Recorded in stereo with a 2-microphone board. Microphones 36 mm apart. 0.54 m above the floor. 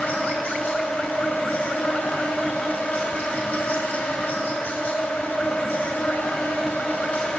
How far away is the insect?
About 2.0 m.